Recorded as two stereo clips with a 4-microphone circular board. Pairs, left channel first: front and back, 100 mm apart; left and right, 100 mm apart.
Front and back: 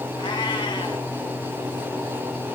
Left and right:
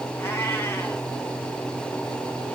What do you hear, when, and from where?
0.2 s a cat meowing: 25° left, 2 m